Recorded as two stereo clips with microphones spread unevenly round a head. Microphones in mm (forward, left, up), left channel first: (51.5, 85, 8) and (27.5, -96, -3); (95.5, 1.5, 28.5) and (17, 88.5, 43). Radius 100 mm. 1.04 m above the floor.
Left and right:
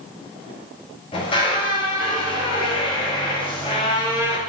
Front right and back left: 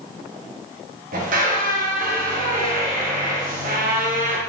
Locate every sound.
1.1 s a squeak: 150° left, 1.2 m